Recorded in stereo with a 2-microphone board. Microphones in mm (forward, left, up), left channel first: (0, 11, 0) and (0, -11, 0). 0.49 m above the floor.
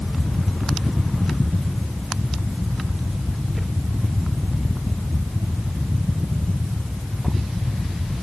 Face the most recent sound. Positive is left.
No sound to turn to.